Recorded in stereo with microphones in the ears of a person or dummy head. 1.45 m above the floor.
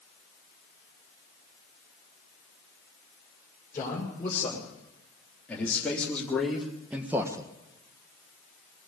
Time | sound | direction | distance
3.7 | a man speaking | 10° left (ahead or behind) | 6 m